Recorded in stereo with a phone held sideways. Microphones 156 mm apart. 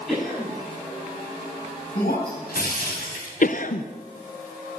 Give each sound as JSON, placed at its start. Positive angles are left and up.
{"t": 0.1, "sound": "a cough", "side_deg": 5, "distance_m": 8.5}
{"t": 1.9, "sound": "breaking glass", "side_deg": 75, "distance_m": 3.5}
{"t": 3.4, "sound": "a cough", "side_deg": 60, "distance_m": 0.6}